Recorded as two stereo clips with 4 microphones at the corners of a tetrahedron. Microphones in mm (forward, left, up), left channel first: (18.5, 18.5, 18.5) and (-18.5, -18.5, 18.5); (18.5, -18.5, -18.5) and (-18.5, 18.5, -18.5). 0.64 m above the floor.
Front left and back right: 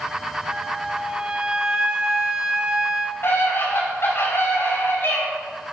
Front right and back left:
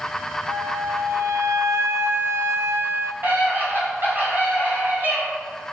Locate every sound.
0.5 s a flute: 155° left, 0.7 m
3.2 s a scream: 85° left, 5.5 m